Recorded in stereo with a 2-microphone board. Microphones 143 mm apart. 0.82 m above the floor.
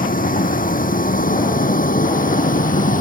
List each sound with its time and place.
0.0 s a vehicle: 75° left (ahead or behind); by 3.0 s 70° left (ahead or behind)